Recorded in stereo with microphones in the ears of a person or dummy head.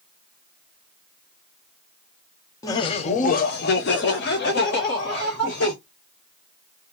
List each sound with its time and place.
2.6 s laughter: 20° left (ahead or behind), 0.6 m; by 5.8 s 55° left (ahead or behind), 1.8 m